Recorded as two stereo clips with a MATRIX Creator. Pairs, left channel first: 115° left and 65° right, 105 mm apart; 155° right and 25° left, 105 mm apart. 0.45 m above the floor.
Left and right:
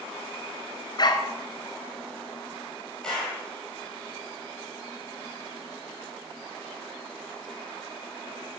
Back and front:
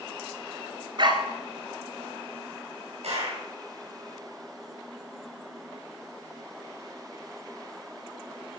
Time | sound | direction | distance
1.0 | a dog barking | 65° left | 1.8 m
3.0 | a clap | 30° left | 10 m